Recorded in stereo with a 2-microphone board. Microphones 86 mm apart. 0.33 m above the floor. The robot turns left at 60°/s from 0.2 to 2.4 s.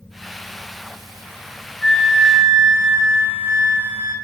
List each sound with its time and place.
1.8 s a flute: 5° left, 1.5 m; by 4.2 s 30° right, 1.5 m